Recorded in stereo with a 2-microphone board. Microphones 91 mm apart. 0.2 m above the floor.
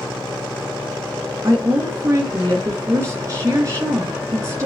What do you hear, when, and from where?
1.4 s a woman speaking: 30° right (ahead or behind), 3.5 m